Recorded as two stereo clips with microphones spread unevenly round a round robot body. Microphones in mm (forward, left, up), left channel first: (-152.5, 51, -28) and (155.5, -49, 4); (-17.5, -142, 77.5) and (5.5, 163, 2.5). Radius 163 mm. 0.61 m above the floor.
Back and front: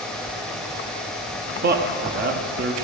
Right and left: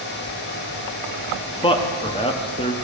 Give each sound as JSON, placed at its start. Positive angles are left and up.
{"t": 1.6, "sound": "a man speaking", "azimuth_deg": -10, "distance_m": 0.9}